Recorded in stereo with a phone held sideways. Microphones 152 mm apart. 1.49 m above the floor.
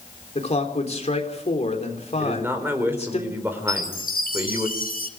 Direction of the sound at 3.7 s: 70° left (ahead or behind).